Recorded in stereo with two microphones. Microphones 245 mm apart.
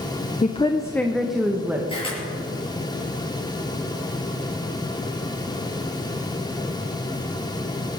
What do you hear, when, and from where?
0.4 s a woman speaking: 30° left (ahead or behind), 0.7 m; by 1.8 s 10° right (ahead or behind), 1.4 m
1.9 s a camera shutter: 20° left (ahead or behind), 6.5 m